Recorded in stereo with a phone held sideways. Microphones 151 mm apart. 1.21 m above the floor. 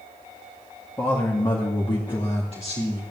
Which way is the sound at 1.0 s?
20° left (ahead or behind).